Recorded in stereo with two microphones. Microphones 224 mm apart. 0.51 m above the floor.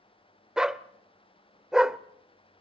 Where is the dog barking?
5° right (ahead or behind), 0.6 m.